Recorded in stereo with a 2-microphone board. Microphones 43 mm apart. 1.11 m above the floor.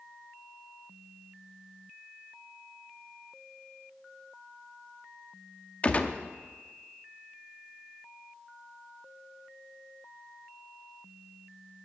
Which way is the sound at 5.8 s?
30° left (ahead or behind).